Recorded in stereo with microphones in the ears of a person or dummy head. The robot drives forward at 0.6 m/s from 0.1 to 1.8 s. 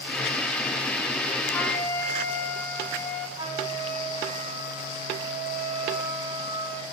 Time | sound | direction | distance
1.5 | a flute | 10° left (ahead or behind) | 1.7 m
3.4 | a flute | 25° right (ahead or behind) | 2.0 m